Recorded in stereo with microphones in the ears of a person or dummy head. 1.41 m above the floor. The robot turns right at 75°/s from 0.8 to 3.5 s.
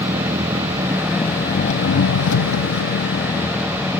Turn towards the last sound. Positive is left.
turn(degrees=180)